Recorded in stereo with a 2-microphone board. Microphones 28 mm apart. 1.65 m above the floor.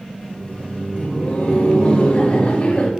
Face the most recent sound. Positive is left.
turn(degrees=60)  # may be behind; listen again after turning